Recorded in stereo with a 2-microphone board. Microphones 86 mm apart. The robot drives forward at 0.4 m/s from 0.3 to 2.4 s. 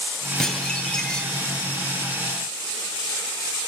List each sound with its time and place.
0.4 s dishes clattering: 5° left (ahead or behind), 7 m